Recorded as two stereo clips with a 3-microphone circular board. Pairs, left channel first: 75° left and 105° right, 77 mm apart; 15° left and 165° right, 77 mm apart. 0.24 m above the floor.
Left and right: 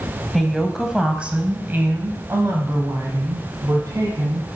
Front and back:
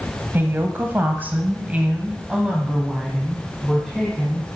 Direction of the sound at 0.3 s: 160° left.